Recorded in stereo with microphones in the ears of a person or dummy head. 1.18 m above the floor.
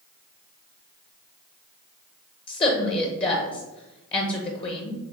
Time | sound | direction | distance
2.5 | a woman speaking | 25° left (ahead or behind) | 0.7 m